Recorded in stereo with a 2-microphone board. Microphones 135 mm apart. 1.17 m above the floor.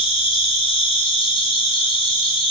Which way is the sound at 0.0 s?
35° left (ahead or behind).